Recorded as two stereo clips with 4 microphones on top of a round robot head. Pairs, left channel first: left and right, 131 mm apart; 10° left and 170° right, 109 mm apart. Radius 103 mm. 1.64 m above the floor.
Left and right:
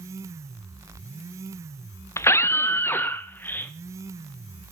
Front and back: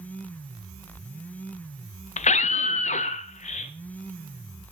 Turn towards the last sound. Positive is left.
turn(degrees=15)